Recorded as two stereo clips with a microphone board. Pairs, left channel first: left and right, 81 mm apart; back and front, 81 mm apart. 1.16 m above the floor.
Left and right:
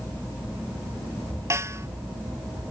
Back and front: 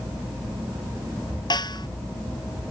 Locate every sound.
1.5 s a snare drum: 145° right